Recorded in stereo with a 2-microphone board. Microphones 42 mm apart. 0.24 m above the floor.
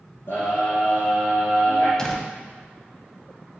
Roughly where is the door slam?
Centre.